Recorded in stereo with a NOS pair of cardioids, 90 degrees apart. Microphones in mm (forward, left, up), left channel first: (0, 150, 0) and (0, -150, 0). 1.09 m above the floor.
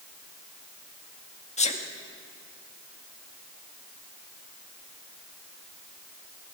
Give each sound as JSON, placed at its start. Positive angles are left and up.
{"t": 1.6, "sound": "a sneeze", "azimuth_deg": 20, "distance_m": 2.0}